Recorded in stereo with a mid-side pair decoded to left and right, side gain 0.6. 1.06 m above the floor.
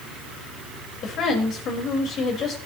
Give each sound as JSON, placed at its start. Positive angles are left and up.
{"t": 1.0, "sound": "a woman speaking", "azimuth_deg": 50, "distance_m": 5.0}